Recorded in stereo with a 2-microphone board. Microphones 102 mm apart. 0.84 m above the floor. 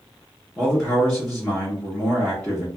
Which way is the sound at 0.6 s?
10° left (ahead or behind).